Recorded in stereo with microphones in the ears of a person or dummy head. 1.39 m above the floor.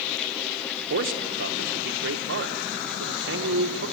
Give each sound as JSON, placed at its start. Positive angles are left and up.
{"t": 0.9, "sound": "a man speaking", "side_deg": -60, "distance_m": 1.3}